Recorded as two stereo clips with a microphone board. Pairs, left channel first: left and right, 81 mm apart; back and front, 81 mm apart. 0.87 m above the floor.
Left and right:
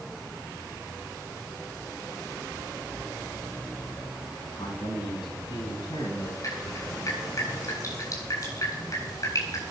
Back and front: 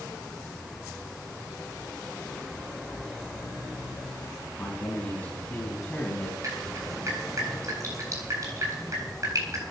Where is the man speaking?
110° left, 7.5 m; by 6.3 s 115° left, 5 m.